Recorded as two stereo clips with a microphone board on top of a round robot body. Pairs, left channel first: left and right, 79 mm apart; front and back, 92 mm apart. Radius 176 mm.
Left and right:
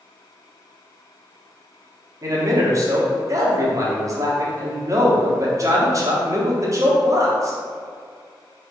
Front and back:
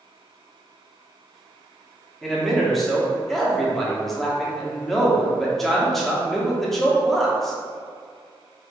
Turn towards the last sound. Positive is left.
turn(degrees=-85)